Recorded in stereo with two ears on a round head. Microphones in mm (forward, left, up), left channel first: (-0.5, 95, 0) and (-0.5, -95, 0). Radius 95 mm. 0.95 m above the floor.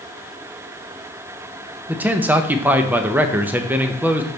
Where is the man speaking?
5° right (ahead or behind), 0.5 m.